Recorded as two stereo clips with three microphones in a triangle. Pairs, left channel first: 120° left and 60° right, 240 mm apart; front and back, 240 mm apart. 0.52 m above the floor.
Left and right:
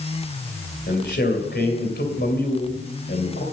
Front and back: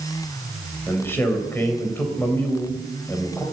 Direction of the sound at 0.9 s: 80° left.